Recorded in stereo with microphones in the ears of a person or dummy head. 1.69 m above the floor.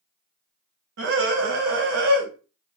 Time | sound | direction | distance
1.0 | a scream | 65° right (ahead or behind) | 1.7 m